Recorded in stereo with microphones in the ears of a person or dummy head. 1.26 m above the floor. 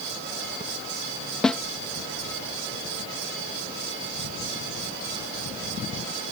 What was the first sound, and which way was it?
A snare drum, 5° left (ahead or behind).